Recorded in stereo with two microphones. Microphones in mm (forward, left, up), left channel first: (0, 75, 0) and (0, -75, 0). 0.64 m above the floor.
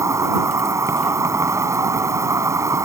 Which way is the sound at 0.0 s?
20° right (ahead or behind).